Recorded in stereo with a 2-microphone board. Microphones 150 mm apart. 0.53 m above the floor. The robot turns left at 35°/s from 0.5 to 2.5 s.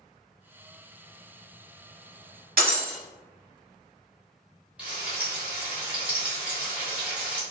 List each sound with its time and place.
2.6 s breaking glass: 70° right (ahead or behind), 1.0 m
4.8 s frying: 10° right (ahead or behind), 1.3 m